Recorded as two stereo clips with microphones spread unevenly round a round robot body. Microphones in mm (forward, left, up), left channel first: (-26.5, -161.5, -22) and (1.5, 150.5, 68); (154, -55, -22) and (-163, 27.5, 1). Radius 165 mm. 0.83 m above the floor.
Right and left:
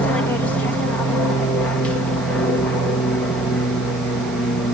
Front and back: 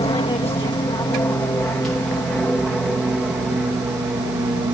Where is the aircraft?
65° right; by 4.8 s 130° right.